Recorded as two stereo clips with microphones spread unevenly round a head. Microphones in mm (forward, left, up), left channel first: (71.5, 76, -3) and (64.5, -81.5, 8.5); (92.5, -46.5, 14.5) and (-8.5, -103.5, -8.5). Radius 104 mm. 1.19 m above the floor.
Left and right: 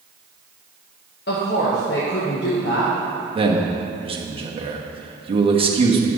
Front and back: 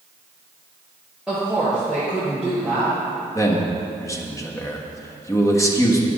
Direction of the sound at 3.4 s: 35° right.